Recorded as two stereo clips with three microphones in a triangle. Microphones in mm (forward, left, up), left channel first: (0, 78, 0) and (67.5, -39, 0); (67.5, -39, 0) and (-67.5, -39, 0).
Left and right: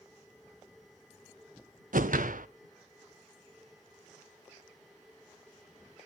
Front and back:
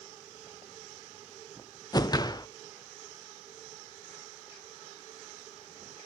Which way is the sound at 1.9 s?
65° right.